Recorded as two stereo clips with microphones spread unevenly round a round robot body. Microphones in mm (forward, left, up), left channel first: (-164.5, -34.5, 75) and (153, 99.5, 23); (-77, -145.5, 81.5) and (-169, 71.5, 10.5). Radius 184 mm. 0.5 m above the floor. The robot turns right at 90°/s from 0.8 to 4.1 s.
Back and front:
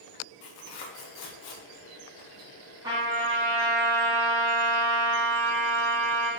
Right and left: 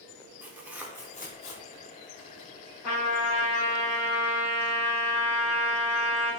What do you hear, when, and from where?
0.4 s tearing paper: 175° right, 0.7 m; by 2.5 s 20° right, 0.7 m
2.8 s a trumpet: 60° right, 1.0 m; by 6.3 s 55° left, 1.0 m